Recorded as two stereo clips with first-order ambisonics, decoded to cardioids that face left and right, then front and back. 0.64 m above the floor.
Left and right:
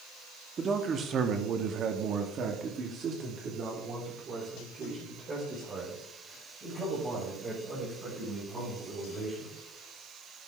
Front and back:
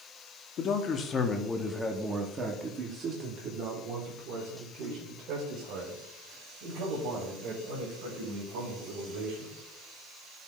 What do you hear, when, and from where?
0.6 s a man speaking: 35° right, 1.2 m; by 9.6 s 160° right, 5 m